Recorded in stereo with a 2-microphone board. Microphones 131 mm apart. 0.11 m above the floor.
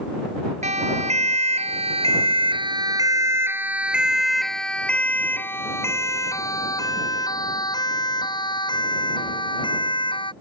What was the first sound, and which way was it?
A siren, 60° right (ahead or behind).